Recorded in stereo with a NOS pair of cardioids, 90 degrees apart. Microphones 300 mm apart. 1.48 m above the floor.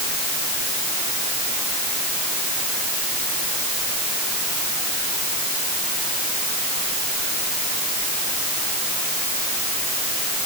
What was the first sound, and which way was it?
Only background noise.